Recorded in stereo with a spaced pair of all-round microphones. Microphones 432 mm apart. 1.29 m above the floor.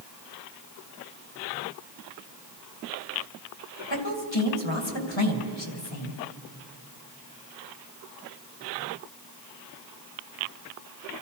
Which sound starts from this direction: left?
A woman speaking, at 3.9 s.